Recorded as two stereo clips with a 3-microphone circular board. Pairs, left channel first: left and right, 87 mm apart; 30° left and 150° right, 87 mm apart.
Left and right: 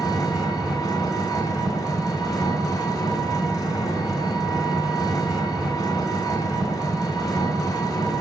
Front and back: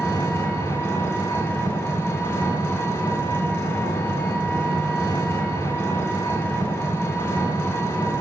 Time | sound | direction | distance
0.0 | an engine running | 80° left | 1.6 m